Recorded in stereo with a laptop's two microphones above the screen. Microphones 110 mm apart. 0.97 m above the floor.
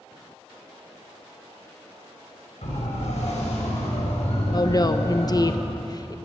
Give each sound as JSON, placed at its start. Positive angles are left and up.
{"t": 2.6, "sound": "a siren", "side_deg": 85, "distance_m": 6.0}
{"t": 4.5, "sound": "a woman speaking", "side_deg": 35, "distance_m": 0.9}